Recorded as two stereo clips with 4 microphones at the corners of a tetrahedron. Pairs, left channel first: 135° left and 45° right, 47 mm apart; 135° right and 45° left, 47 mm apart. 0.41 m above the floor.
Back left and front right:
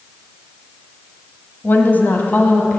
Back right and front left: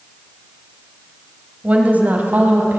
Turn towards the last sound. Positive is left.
turn(degrees=85)